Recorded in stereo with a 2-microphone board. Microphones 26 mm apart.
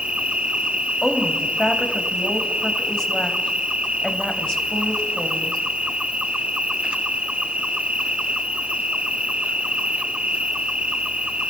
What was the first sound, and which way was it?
An insect, 45° right (ahead or behind).